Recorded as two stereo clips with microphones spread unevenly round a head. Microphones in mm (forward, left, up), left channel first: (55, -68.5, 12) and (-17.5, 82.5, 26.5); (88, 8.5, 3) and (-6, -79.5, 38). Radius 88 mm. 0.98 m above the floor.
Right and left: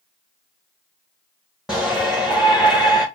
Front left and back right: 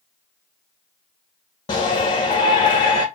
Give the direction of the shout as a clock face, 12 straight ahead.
11 o'clock.